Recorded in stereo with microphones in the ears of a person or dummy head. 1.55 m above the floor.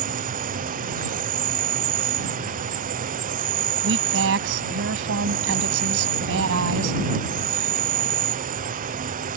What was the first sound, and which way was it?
An insect, 45° right (ahead or behind).